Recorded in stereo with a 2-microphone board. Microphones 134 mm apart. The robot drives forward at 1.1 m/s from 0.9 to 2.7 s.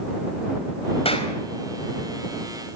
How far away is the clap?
About 4 m.